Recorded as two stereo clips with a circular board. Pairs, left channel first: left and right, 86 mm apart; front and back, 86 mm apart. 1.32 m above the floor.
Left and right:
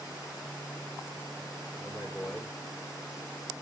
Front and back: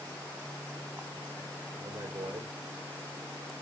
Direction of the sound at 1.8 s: 175° left.